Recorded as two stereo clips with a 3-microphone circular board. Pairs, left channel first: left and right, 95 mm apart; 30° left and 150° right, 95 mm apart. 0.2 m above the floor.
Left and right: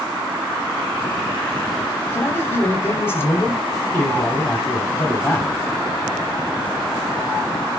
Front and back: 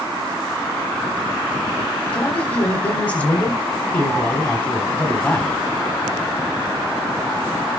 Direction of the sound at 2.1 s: 80° left.